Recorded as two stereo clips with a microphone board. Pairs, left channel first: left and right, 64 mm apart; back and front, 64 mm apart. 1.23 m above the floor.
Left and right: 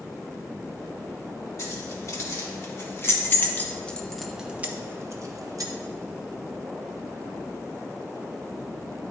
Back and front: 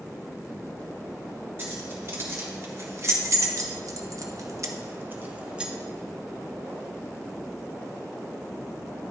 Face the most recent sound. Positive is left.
turn(degrees=-75)